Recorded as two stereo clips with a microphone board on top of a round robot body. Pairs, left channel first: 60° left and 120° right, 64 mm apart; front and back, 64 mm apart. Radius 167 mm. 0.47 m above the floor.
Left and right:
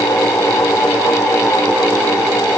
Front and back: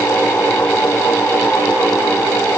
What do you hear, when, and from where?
Only background noise.